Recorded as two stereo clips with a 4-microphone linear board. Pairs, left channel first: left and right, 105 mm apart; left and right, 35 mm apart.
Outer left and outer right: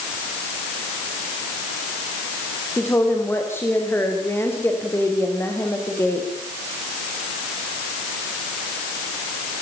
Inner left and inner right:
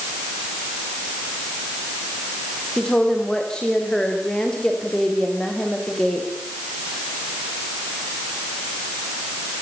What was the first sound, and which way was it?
A woman speaking, 20° left (ahead or behind).